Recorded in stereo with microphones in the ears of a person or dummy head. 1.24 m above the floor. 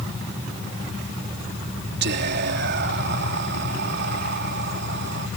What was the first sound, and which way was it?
Whispering, 55° right (ahead or behind).